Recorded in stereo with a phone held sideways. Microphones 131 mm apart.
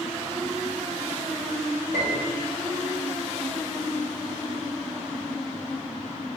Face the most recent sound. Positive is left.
turn(degrees=-70)  # may be behind; listen again after turning